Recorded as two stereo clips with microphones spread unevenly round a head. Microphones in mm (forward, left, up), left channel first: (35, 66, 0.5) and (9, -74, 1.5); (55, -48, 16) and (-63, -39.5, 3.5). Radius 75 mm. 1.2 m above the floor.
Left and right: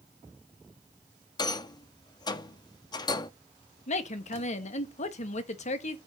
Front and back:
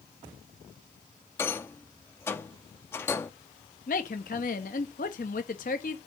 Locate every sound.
1.4 s a rattle: 45° left, 0.7 m
3.9 s a woman speaking: 35° left, 1.3 m